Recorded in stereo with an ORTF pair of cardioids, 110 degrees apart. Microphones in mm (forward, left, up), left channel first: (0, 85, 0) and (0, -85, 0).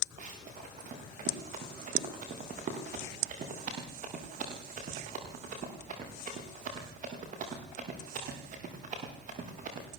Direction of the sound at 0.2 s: 50° right.